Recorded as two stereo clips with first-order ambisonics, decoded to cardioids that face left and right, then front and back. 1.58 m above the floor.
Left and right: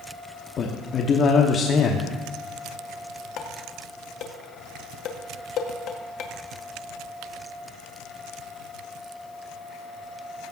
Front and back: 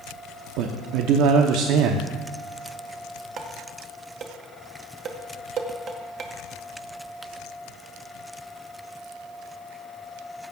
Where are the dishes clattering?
125° left, 1.0 m.